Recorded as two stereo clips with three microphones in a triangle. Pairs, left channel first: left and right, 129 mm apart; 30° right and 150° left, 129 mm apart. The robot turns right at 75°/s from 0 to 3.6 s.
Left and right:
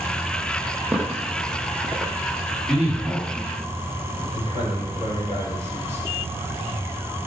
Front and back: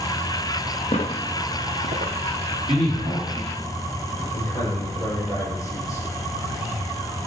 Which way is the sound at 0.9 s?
10° right.